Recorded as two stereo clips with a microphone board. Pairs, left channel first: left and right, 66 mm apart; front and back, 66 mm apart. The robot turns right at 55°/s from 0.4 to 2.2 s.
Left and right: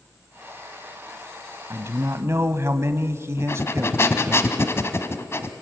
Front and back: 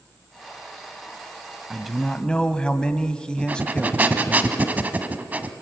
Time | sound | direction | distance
1.7 | a man speaking | 95° right | 1.3 m
3.4 | breathing | 125° left | 1.4 m